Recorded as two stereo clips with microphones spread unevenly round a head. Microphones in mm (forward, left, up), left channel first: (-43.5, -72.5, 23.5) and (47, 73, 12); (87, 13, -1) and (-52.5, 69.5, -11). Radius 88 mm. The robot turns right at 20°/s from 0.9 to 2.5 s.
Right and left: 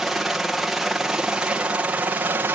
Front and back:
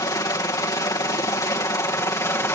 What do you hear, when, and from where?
0.0 s a helicopter: 20° right; by 2.6 s 15° left